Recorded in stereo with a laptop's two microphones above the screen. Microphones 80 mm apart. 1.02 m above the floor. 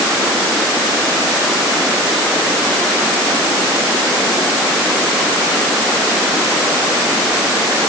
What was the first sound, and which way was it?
Only background noise.